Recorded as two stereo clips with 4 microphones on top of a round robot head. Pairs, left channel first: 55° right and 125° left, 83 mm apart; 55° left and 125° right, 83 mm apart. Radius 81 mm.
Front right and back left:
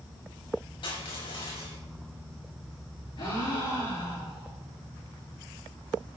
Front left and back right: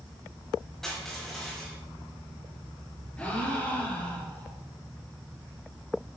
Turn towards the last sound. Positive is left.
turn(degrees=-20)